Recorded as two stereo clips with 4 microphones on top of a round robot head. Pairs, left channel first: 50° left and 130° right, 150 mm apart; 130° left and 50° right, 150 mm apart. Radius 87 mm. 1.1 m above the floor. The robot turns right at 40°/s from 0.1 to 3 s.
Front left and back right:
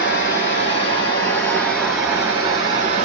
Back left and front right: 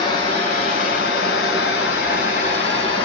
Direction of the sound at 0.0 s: 65° left.